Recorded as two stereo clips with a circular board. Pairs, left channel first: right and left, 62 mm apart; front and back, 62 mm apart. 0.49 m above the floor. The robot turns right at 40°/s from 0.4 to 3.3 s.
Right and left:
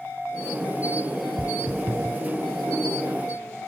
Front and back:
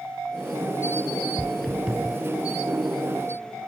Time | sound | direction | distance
1.4 | footsteps | 70° left | ?